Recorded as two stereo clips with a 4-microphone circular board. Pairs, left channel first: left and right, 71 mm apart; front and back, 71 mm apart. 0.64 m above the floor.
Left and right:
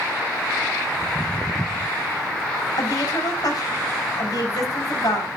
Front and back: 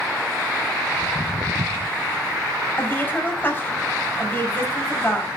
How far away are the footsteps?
About 1.1 m.